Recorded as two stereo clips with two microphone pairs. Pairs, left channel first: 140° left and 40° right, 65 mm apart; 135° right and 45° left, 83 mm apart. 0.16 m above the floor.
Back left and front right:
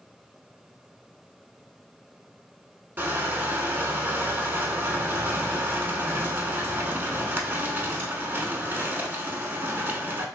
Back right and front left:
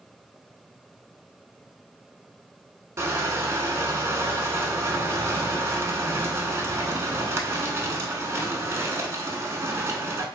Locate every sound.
3.0 s crushing: 5° left, 0.5 m